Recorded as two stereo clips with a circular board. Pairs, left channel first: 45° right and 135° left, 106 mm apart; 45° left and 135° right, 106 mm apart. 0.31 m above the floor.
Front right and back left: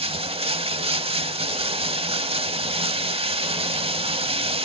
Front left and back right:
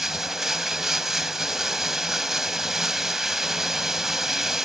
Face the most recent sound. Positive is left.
turn(degrees=140)